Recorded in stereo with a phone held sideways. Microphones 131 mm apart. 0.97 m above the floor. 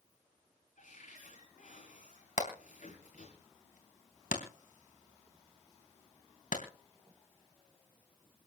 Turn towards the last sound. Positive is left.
turn(degrees=80)